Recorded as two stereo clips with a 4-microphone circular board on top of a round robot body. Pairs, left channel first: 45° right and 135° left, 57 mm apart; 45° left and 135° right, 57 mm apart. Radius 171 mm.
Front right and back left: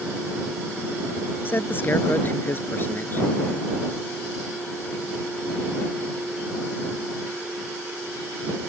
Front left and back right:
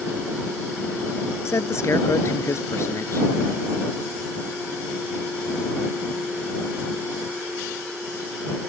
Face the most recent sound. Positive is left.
turn(degrees=10)